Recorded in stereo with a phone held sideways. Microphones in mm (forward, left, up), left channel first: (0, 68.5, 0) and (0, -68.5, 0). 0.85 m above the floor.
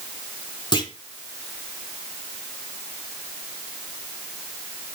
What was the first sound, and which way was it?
A clunk, 35° left (ahead or behind).